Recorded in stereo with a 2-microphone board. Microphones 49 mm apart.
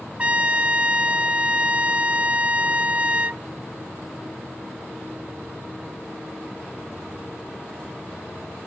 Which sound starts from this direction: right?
A trumpet, at 0.2 s.